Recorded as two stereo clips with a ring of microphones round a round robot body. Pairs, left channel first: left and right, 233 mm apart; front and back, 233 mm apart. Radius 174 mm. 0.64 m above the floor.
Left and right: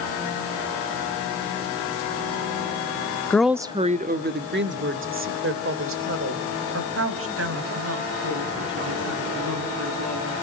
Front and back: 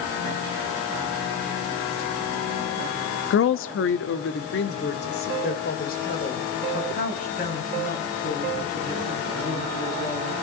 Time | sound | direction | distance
3.3 | a woman speaking | 10° left | 0.8 m